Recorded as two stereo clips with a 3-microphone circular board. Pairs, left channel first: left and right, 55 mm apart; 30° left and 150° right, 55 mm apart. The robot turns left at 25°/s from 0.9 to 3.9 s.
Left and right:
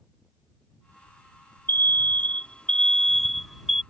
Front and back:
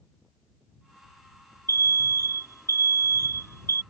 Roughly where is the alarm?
Ahead left.